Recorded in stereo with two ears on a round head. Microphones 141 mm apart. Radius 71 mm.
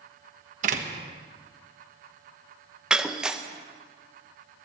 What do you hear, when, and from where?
0.6 s a door slam: 50° right (ahead or behind), 1.2 m
2.9 s breaking glass: 5° right (ahead or behind), 0.6 m